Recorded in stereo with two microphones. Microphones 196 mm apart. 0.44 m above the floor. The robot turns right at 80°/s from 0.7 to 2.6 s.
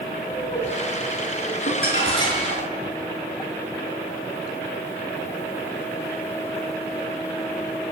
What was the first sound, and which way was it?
Laughter, 35° left (ahead or behind).